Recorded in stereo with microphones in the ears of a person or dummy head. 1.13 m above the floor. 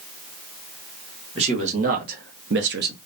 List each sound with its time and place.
1.4 s a man speaking: 40° right (ahead or behind), 1.1 m; by 3.0 s 45° right (ahead or behind), 0.5 m